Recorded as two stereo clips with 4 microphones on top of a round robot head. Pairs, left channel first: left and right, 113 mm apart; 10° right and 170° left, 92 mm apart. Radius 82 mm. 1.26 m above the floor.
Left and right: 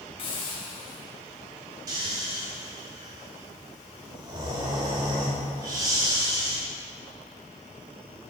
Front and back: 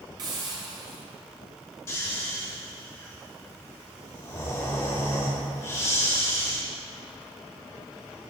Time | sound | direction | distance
0.2 | a hiss | 130° left | 2 m
1.9 | snoring | 60° right | 1.0 m